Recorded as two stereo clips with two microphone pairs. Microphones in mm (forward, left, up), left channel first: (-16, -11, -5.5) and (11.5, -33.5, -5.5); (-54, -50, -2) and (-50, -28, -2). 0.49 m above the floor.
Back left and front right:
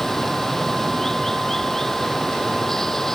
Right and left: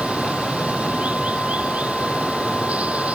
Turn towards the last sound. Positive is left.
turn(degrees=60)